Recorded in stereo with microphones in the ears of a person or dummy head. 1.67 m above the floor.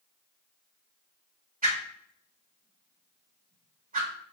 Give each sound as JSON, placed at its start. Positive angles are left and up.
{"t": 1.6, "sound": "a whoosh", "side_deg": -40, "distance_m": 0.7}